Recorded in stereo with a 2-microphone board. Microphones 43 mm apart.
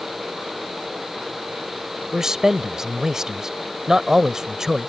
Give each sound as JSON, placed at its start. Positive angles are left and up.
{"t": 2.1, "sound": "a man speaking", "side_deg": -15}